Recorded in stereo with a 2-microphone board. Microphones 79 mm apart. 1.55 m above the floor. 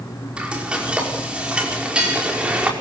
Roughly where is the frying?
Centre.